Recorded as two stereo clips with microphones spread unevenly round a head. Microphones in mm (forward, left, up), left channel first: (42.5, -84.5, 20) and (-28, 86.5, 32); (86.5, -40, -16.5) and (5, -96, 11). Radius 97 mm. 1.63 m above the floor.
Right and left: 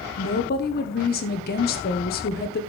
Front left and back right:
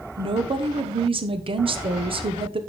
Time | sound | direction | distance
0.2 | a woman speaking | 115° right | 1.3 m